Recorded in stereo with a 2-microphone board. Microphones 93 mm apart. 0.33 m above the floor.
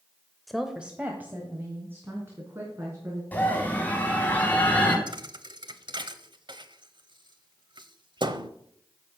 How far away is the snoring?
I don't hear snoring.